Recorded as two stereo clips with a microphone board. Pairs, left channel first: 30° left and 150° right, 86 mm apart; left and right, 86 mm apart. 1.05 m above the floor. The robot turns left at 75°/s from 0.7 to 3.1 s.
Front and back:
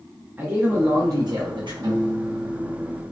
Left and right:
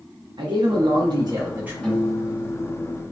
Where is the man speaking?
85° right, 0.7 m; by 1.7 s 160° right, 0.7 m.